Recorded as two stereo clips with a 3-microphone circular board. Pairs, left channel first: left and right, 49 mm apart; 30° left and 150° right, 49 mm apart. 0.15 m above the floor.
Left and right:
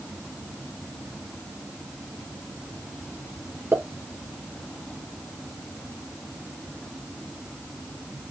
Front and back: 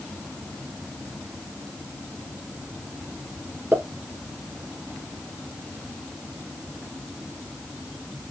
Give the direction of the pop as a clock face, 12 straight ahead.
4 o'clock.